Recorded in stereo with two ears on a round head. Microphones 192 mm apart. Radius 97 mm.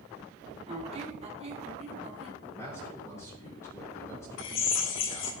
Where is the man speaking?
15° left (ahead or behind), 3.5 m.